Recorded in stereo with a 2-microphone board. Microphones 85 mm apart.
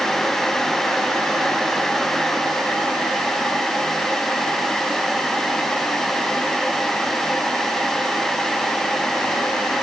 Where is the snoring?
I don't hear snoring.